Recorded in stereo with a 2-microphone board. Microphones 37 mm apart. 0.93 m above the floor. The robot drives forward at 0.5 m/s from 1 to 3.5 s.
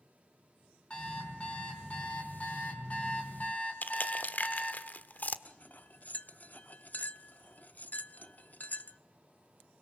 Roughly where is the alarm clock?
Left.